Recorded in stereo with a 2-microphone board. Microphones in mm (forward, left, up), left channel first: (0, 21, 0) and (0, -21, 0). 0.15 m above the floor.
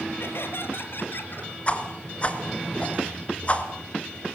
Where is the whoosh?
30° left (ahead or behind), 2.5 m.